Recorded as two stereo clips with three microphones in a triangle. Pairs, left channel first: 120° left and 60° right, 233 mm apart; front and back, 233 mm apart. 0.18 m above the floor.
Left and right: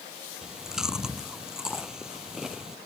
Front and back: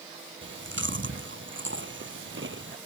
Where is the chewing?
145° right.